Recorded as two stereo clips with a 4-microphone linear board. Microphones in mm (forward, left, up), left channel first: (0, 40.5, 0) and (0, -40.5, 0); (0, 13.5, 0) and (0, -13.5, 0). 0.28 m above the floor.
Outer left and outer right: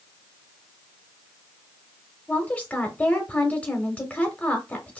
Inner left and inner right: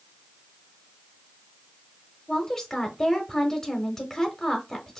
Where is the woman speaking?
20° left (ahead or behind), 1.0 m.